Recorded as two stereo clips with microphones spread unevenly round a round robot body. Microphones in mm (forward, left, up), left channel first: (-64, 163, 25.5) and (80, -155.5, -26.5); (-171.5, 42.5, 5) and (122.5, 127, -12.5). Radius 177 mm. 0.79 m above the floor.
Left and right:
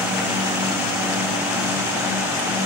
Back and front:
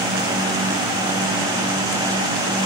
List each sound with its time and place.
Only background noise.